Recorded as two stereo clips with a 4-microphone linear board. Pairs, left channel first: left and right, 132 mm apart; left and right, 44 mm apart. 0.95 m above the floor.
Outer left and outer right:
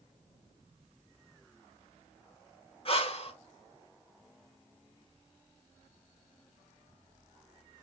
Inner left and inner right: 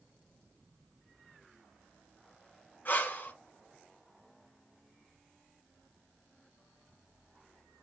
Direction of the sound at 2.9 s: 45° left (ahead or behind).